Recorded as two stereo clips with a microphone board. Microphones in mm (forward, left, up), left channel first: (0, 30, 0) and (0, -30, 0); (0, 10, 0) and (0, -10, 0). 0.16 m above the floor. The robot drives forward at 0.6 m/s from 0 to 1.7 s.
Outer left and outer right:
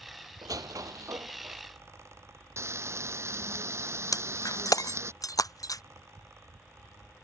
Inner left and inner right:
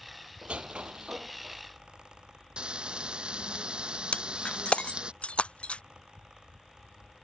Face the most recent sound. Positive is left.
turn(degrees=70)  # may be behind; listen again after turning